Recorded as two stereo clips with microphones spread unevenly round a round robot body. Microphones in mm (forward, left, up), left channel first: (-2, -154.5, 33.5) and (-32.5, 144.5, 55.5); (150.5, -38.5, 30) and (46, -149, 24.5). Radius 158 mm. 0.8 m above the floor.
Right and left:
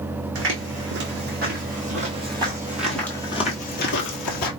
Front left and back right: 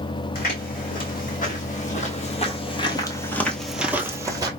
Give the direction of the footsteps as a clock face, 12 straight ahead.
10 o'clock.